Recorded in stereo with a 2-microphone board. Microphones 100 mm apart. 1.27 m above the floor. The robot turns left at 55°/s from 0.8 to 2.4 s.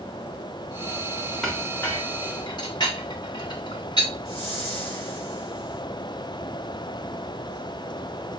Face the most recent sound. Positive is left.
turn(degrees=-45)  # may be behind; listen again after turning